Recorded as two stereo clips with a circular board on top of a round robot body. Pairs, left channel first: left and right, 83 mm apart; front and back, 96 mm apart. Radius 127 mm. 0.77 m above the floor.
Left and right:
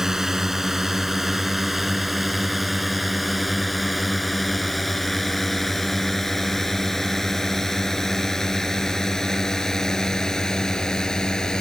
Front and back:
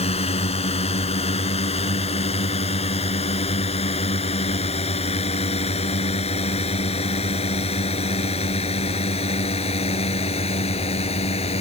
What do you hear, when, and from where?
0.0 s a drone: 5° right; by 11.6 s 10° left